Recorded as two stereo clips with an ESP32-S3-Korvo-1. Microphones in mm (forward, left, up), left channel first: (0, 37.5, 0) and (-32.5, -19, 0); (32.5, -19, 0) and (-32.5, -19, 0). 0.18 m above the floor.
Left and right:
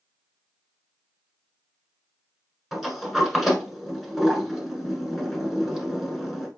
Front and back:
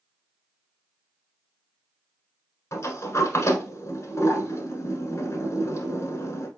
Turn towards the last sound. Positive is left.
turn(degrees=-30)